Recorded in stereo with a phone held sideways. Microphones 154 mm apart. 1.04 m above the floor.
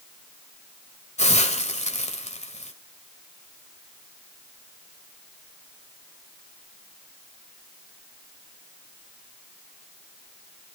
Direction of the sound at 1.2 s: 50° left (ahead or behind).